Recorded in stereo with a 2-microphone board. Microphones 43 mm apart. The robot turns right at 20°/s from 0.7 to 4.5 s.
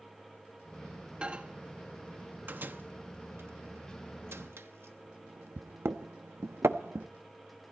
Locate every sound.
1.2 s a microwave: 30° right (ahead or behind), 0.9 m; by 7.1 s 85° right, 0.9 m